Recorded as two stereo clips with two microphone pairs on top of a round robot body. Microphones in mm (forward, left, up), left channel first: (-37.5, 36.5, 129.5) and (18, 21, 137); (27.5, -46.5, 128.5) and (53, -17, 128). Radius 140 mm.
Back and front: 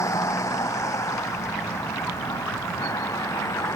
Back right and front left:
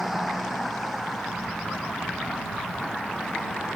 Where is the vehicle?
140° left.